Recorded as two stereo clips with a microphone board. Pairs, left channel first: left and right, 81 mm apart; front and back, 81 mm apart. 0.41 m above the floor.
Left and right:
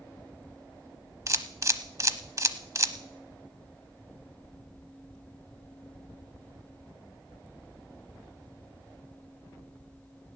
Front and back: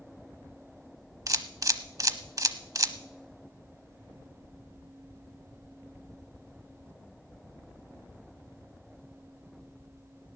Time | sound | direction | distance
1.3 | a camera shutter | 135° right | 0.8 m